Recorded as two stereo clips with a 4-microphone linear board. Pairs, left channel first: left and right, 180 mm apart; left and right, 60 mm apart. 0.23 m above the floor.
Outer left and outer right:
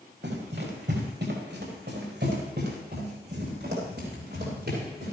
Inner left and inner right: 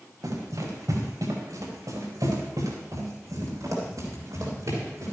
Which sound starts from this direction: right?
Running footsteps, at 0.2 s.